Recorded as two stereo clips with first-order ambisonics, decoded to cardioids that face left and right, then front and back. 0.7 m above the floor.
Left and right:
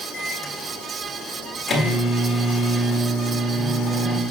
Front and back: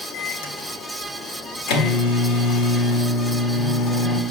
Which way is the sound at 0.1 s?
10° left.